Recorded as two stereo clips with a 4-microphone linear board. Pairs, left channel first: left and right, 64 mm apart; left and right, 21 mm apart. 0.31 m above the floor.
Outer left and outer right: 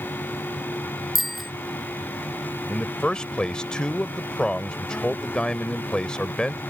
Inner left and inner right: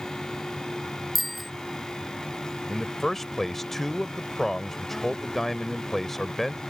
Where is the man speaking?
15° left (ahead or behind).